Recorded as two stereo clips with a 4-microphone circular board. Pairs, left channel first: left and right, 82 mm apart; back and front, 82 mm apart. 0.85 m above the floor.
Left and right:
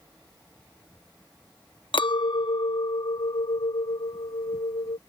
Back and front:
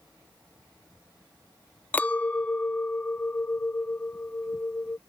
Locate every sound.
1.9 s a clink: 110° left